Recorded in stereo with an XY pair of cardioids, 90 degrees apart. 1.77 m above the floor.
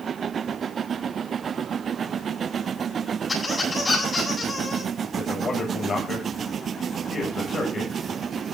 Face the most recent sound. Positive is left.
turn(degrees=55)